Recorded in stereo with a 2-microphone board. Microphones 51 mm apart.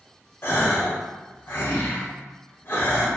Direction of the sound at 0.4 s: 45° left (ahead or behind).